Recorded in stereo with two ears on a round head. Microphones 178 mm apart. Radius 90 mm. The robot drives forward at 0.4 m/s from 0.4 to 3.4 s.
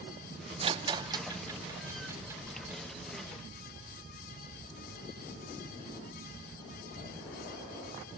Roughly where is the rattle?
Right.